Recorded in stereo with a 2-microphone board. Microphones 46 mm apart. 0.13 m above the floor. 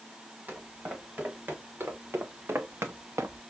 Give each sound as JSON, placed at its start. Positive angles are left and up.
{"t": 0.5, "sound": "footsteps", "side_deg": -40, "distance_m": 2.5}